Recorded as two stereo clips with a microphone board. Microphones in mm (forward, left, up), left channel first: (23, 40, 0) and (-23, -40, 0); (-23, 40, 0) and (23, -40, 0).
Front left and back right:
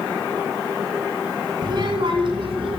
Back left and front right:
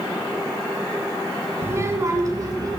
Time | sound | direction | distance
1.6 | a child speaking | 115° right | 1.3 m